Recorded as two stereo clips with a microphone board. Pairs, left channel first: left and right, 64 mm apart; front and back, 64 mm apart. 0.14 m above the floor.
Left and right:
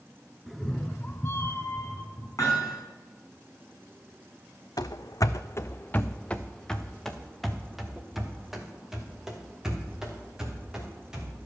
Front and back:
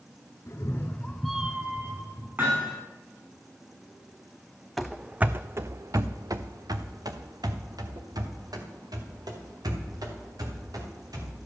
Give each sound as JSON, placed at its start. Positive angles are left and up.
{"t": 0.5, "sound": "a cat meowing", "azimuth_deg": 0, "distance_m": 1.1}
{"t": 2.4, "sound": "hammering", "azimuth_deg": 125, "distance_m": 4.5}
{"t": 4.8, "sound": "running footsteps", "azimuth_deg": 90, "distance_m": 0.6}